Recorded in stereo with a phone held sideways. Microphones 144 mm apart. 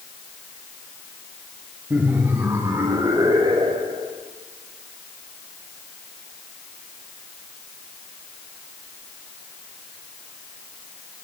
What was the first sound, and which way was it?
Laughter, 10° right (ahead or behind).